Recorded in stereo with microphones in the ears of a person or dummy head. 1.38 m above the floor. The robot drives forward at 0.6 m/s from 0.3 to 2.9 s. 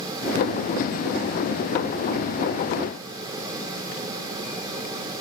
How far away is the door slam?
No door slam in this recording.